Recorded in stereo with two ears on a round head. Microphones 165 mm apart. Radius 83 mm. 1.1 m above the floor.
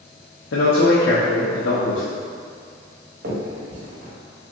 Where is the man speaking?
80° left, 0.6 m.